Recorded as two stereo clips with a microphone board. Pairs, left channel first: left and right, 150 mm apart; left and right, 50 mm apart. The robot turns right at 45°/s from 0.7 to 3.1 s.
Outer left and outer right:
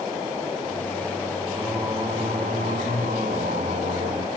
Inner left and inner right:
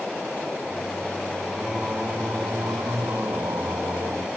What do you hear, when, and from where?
1.5 s singing: 170° right, 6 m; by 4.3 s 95° right, 6 m